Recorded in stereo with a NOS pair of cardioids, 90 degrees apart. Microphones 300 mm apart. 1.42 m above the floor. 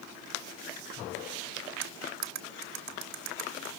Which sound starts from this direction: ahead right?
Cutlery clinking, at 1.8 s.